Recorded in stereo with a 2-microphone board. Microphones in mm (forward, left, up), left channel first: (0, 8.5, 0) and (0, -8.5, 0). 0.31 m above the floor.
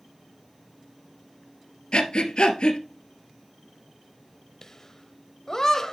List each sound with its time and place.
1.9 s breathing: 70° left (ahead or behind), 1.4 m
4.6 s laughter: 30° left (ahead or behind), 1.1 m